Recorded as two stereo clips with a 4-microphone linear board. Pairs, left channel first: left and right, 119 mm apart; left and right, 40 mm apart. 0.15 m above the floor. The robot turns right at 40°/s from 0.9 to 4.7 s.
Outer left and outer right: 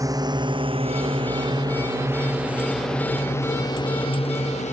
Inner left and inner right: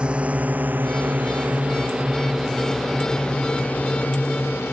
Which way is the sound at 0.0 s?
30° right (ahead or behind).